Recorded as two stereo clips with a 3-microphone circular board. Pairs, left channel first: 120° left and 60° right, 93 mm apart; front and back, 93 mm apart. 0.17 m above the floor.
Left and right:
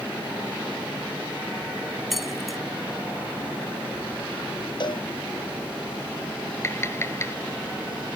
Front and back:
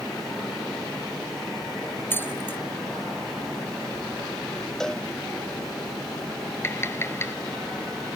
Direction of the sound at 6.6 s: 60° left.